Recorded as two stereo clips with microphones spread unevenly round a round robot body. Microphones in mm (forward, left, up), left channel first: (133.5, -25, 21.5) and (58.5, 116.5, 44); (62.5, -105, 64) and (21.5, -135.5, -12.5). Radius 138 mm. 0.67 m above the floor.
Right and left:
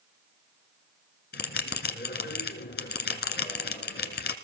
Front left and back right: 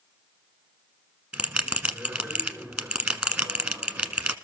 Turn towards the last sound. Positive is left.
turn(degrees=-55)